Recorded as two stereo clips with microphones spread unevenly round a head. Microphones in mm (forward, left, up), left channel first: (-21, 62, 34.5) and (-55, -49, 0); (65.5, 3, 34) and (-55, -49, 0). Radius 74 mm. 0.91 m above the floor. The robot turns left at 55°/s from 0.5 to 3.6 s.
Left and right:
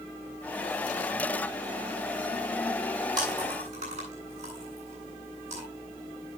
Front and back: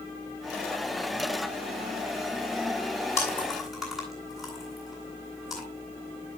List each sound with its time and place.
3.2 s chewing: 45° right, 9.5 m; by 5.6 s 70° right, 9.5 m